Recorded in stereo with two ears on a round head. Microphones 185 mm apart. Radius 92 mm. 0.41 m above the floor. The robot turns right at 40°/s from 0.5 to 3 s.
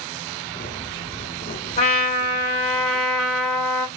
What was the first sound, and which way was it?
A trumpet, 130° left.